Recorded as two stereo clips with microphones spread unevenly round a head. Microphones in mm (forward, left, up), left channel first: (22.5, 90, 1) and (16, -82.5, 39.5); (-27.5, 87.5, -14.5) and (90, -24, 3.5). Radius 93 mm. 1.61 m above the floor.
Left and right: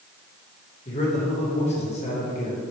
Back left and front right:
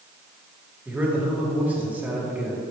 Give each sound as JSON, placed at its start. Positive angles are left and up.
{"t": 0.8, "sound": "a man speaking", "azimuth_deg": 35, "distance_m": 2.5}